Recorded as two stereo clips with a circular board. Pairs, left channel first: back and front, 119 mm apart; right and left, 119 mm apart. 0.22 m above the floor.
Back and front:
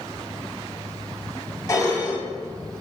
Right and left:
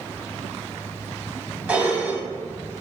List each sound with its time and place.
1.7 s dishes clattering: 155° left, 0.7 m